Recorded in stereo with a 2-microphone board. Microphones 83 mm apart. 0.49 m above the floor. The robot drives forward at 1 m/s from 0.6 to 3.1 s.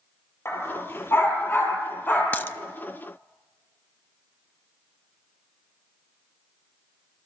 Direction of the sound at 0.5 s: 30° left (ahead or behind).